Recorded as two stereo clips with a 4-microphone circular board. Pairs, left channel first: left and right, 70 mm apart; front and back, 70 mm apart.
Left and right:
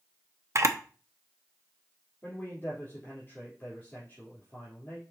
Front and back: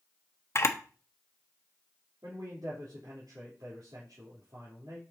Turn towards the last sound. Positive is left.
turn(degrees=150)